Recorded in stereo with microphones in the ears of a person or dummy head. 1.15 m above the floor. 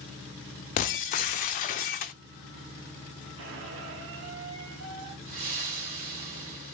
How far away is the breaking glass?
About 0.5 m.